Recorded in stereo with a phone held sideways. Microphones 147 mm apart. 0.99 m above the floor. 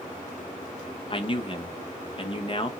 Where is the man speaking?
35° left (ahead or behind), 0.8 m.